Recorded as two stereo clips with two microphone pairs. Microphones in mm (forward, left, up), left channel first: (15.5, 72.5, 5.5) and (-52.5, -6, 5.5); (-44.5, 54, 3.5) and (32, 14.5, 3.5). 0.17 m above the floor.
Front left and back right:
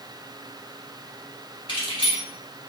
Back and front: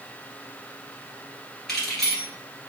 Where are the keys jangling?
70° left, 2 m.